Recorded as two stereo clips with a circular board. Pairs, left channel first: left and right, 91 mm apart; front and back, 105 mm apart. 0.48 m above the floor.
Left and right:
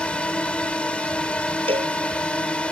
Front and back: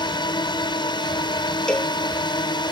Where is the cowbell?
85° right.